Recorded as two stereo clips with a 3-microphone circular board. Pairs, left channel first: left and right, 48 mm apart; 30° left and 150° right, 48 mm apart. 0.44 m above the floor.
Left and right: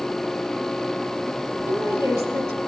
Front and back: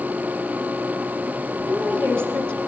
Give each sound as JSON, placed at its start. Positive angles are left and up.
{"t": 1.7, "sound": "a woman speaking", "azimuth_deg": -115, "distance_m": 8.5}